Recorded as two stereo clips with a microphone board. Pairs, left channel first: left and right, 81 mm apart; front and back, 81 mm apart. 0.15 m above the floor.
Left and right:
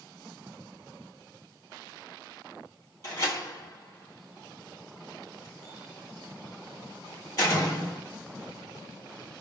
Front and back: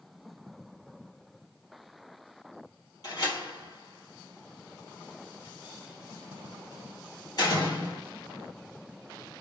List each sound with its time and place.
3.0 s a door slam: 45° left, 2.5 m